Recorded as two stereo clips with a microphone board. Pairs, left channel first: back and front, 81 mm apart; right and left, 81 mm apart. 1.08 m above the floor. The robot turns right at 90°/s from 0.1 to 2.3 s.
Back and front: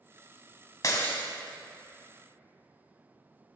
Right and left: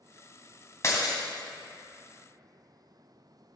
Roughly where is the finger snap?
No finger snap in this recording.